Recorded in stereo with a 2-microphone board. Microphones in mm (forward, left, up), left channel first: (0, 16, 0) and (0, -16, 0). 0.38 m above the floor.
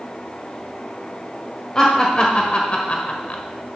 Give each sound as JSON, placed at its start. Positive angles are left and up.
{"t": 1.8, "sound": "laughter", "side_deg": 25, "distance_m": 1.5}